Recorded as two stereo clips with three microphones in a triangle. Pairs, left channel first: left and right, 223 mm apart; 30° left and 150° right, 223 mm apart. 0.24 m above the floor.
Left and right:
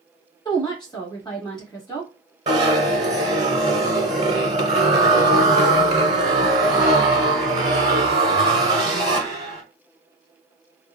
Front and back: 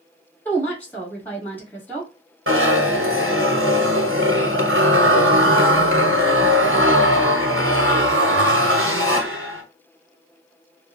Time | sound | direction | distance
0.5 | a woman speaking | 95° left | 1.3 m
2.5 | a zipper | 150° right | 1.2 m